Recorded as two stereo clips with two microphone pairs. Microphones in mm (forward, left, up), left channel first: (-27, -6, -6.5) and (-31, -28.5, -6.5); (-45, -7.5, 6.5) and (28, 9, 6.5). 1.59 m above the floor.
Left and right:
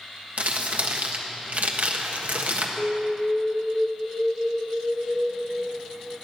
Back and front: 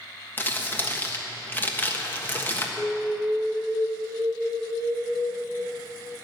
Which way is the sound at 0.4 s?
105° right.